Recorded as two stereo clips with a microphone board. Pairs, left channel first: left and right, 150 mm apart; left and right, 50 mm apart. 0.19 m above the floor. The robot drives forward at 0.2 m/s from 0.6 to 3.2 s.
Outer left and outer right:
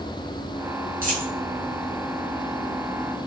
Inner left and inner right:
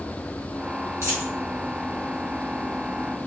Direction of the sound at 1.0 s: 65° right (ahead or behind).